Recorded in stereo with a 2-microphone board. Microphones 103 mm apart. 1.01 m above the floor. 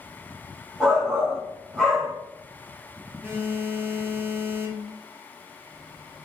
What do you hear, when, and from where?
0.8 s a shout: centre (ahead or behind), 1.1 m
3.2 s a phone buzzing: 20° right (ahead or behind), 0.5 m